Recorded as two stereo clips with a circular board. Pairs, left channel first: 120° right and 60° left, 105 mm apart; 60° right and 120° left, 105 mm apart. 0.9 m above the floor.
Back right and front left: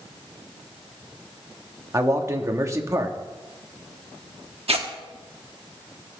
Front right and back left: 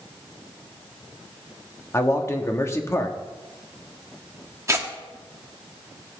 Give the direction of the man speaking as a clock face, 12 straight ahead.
12 o'clock.